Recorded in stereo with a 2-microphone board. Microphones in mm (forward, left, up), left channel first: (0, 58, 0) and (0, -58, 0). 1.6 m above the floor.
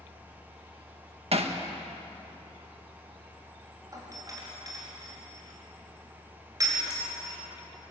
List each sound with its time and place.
1.3 s hammering: 60° right (ahead or behind), 1.5 m
3.9 s a doorbell: 30° right (ahead or behind), 5 m